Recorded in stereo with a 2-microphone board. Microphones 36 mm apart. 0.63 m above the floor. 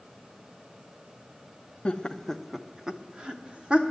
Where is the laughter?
25° left (ahead or behind), 0.6 m; by 3.8 s 30° right (ahead or behind), 1.2 m.